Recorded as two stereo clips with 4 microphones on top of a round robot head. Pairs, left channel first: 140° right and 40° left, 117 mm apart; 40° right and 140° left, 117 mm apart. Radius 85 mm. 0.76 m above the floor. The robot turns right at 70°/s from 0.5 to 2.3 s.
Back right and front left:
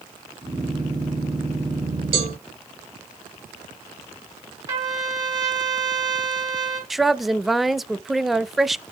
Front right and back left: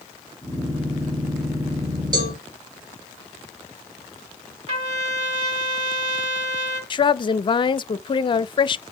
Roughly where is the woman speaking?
Ahead right.